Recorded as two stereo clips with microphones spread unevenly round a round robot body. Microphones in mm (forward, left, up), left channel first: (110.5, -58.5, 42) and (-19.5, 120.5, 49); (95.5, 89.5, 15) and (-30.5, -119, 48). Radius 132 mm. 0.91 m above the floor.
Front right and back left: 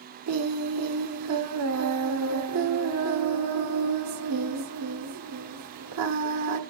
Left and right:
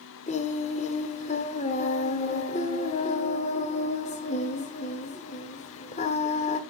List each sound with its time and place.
0.3 s singing: 125° left, 1.2 m